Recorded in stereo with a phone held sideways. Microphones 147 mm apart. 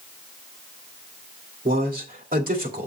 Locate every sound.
1.6 s a man speaking: 80° right, 2 m